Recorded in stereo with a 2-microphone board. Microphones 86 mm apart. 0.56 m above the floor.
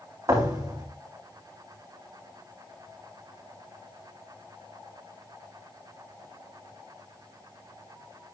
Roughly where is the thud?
Right.